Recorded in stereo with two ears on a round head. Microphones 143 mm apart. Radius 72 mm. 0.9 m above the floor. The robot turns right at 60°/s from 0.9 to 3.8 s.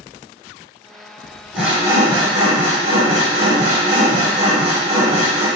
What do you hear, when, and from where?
1.5 s sawing: 175° right, 1.2 m; by 5.5 s 40° right, 1.2 m